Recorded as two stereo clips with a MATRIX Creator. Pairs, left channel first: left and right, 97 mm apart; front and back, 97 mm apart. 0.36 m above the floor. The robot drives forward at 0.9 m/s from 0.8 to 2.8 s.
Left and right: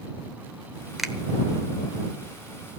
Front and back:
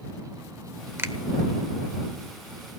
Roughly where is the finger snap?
Behind.